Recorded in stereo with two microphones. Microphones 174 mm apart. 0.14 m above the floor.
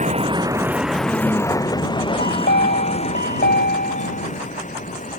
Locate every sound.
0.0 s a vehicle: 45° right (ahead or behind); by 5.2 s 45° left (ahead or behind)
2.2 s a chime: 70° left (ahead or behind)